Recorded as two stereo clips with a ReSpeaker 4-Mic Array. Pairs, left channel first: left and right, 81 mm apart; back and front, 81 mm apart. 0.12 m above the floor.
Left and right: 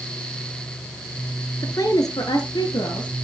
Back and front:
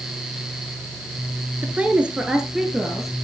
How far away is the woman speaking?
About 1.7 m.